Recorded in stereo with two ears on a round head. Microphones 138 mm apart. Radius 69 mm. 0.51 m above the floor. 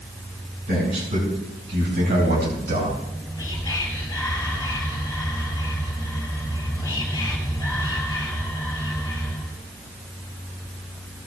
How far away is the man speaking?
About 5 m.